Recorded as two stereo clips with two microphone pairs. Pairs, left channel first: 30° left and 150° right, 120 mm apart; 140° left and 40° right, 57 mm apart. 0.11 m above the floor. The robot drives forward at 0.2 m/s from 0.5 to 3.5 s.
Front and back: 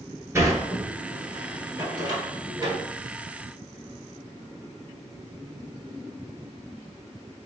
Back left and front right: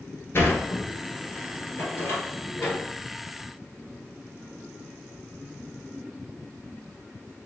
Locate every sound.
0.3 s a sliding door: 155° left, 1.3 m; by 2.8 s 165° left, 1.6 m